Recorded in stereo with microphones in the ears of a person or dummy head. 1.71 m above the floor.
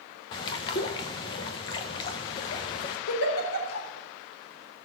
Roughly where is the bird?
Left.